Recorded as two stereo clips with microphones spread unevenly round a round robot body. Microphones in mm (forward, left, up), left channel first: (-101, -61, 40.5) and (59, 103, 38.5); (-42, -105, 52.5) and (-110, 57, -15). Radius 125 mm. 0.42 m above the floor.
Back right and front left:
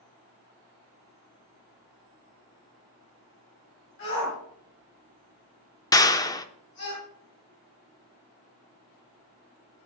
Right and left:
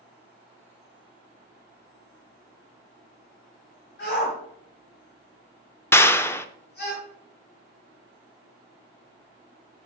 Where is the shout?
95° right, 4 m.